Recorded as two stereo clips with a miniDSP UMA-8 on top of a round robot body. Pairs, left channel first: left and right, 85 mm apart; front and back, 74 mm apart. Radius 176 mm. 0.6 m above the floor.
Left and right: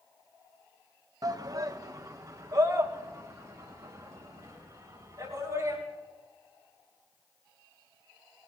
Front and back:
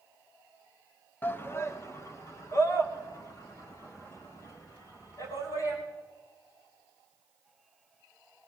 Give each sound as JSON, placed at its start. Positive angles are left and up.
{"t": 1.2, "sound": "a shout", "azimuth_deg": -60, "distance_m": 1.0}